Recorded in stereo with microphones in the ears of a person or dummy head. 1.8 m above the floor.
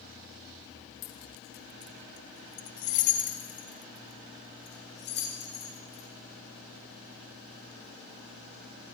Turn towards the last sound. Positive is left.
turn(degrees=35)  # may be behind; listen again after turning